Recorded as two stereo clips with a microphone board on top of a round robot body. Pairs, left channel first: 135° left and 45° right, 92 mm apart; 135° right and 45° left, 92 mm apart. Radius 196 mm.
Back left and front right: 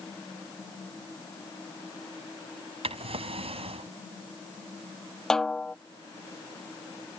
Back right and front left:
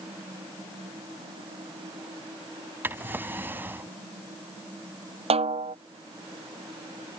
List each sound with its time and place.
2.8 s a drawer: 25° right
5.3 s a snare drum: 50° left